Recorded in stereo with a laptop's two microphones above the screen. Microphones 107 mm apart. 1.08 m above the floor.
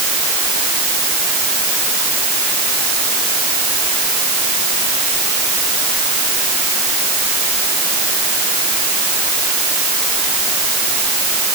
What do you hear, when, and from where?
Only background noise.